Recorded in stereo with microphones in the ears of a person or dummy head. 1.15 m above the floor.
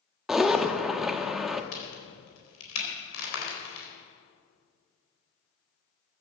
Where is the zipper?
5° left (ahead or behind), 0.9 m.